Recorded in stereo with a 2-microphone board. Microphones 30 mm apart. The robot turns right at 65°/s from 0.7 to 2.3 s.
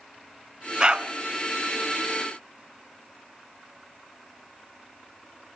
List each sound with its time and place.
0.8 s a dog barking: 25° right (ahead or behind), 0.7 m; by 1.1 s 35° right (ahead or behind), 0.7 m